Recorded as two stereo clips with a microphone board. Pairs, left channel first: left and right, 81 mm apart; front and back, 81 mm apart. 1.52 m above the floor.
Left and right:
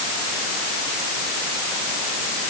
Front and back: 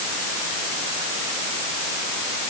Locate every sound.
Only background noise.